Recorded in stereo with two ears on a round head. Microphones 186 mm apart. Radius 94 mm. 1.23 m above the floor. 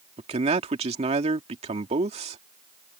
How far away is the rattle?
I don't hear a rattle.